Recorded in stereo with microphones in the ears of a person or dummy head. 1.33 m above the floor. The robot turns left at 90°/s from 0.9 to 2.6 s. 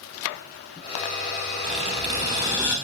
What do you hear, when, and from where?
1.6 s a squeak: 25° right (ahead or behind), 1.0 m; by 2.8 s 5° right (ahead or behind), 1.0 m